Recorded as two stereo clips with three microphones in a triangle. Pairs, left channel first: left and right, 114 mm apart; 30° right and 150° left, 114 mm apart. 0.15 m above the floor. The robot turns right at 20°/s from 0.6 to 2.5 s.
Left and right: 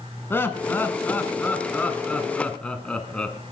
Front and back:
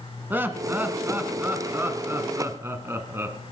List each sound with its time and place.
0.3 s laughter: 115° left, 1.1 m; by 3.4 s 150° left, 1.1 m